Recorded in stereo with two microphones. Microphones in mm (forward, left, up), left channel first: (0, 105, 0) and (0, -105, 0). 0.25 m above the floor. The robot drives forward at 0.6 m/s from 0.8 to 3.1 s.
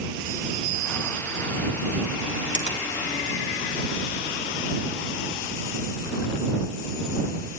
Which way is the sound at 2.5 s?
35° left (ahead or behind).